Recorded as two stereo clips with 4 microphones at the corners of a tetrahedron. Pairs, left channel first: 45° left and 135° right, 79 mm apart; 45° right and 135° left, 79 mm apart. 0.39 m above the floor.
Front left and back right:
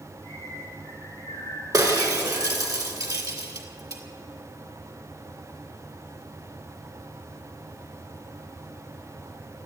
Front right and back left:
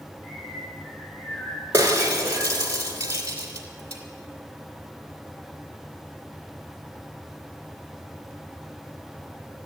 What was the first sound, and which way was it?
A bird, 20° right.